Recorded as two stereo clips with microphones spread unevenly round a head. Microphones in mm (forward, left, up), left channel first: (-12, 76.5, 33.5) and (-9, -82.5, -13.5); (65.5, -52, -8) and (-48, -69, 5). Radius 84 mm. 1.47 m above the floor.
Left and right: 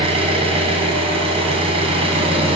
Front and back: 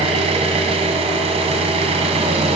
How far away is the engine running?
About 3.5 m.